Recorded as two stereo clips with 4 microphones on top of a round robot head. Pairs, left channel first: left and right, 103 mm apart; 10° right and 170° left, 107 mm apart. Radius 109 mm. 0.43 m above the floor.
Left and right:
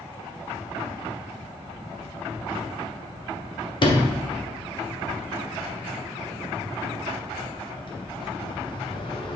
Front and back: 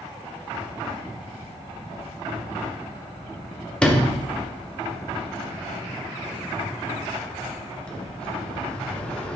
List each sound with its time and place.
3.8 s a sliding door: 70° left, 1.6 m